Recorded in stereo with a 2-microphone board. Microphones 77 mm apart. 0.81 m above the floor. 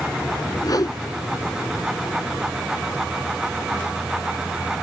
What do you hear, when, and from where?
0.6 s a whoosh: 55° left (ahead or behind)